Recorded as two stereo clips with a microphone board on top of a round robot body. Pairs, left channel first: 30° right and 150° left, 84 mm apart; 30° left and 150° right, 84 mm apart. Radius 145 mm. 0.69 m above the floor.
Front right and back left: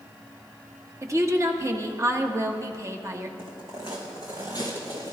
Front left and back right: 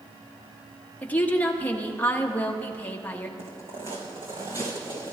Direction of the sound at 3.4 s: 150° right.